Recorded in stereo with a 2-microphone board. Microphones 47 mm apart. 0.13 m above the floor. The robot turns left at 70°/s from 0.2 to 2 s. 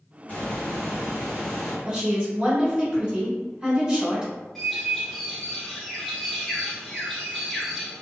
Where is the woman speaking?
20° right (ahead or behind), 1.2 m.